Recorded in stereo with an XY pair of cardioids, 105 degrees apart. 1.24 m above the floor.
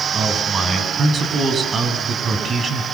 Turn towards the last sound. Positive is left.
turn(degrees=-40)